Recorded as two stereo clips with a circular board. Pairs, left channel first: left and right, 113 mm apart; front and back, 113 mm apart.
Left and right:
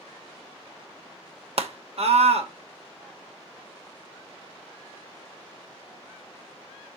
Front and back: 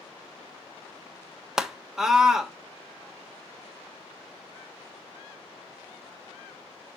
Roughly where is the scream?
Right.